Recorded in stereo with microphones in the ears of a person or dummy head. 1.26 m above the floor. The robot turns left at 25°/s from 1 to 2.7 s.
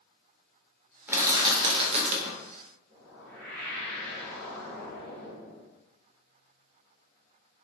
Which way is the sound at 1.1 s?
15° right.